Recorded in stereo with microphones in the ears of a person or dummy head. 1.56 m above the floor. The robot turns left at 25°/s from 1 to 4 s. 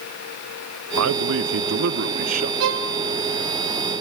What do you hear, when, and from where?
1.0 s a man speaking: 100° right, 0.7 m; by 2.5 s 140° right, 0.7 m
2.6 s a violin: 55° right (ahead or behind), 0.9 m